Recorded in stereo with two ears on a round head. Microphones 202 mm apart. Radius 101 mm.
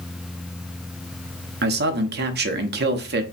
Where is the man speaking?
50° right (ahead or behind), 0.6 m.